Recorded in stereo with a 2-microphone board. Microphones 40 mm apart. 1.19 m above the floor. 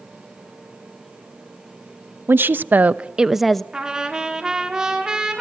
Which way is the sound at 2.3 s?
65° right (ahead or behind).